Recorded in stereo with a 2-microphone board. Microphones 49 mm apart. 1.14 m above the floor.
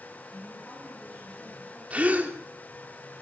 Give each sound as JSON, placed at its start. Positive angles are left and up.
{"t": 0.3, "sound": "a woman speaking", "side_deg": 15, "distance_m": 9.5}
{"t": 1.9, "sound": "a gasp", "side_deg": -30, "distance_m": 3.0}